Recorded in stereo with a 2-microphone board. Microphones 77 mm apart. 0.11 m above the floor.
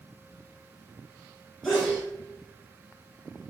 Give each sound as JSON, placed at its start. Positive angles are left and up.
{"t": 1.6, "sound": "a sneeze", "side_deg": 5, "distance_m": 1.6}